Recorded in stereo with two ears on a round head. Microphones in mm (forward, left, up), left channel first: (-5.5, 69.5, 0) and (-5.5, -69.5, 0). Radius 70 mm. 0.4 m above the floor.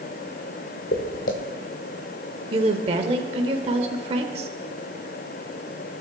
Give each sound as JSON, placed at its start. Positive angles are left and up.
{"t": 0.9, "sound": "footsteps", "side_deg": 65, "distance_m": 1.8}
{"t": 2.5, "sound": "a woman speaking", "side_deg": -40, "distance_m": 1.0}